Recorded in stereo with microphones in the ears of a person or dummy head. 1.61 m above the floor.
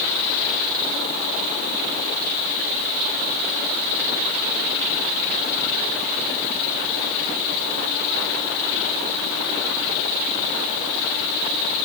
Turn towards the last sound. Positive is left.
No sound to turn to.